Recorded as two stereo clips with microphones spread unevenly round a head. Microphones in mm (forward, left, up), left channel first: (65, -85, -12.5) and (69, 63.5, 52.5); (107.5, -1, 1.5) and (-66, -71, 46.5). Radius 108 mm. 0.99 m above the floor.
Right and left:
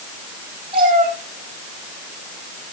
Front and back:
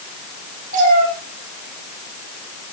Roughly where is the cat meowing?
Behind left.